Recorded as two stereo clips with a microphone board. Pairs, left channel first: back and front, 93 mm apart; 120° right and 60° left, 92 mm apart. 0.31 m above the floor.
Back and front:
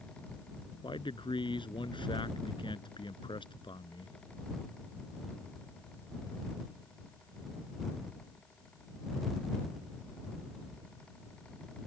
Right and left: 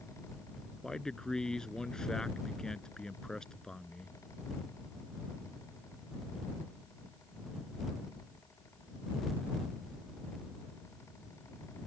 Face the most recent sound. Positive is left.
turn(degrees=160)